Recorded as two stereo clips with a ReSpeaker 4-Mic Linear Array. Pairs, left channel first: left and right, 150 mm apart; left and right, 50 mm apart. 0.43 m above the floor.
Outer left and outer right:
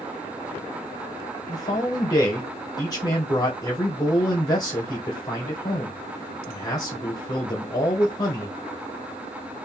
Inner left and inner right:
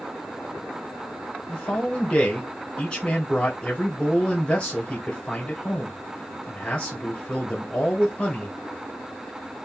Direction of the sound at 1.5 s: 25° left (ahead or behind).